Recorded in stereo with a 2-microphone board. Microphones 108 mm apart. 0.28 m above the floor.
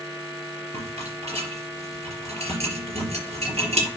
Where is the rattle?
75° right (ahead or behind), 4 m.